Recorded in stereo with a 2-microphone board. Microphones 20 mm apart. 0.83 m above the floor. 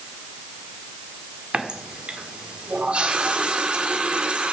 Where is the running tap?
70° right (ahead or behind), 1.5 m.